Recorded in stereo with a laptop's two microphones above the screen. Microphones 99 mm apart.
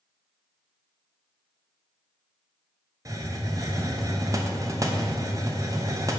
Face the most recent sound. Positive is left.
turn(degrees=-35)  # may be behind; listen again after turning